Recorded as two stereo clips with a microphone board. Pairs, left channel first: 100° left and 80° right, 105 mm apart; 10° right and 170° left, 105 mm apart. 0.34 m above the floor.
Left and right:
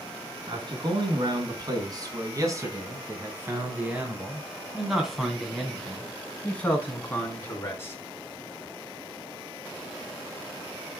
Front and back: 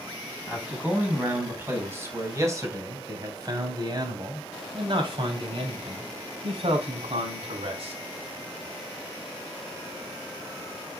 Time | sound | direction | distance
0.5 | a man speaking | 115° right | 3.5 m